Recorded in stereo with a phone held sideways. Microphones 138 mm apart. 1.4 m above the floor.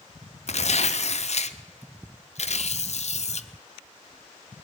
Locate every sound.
0.5 s tearing paper: 60° left (ahead or behind), 0.6 m